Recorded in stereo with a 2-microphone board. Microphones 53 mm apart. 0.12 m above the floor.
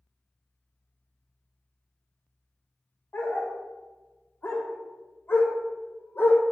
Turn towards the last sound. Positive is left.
turn(degrees=50)  # may be behind; listen again after turning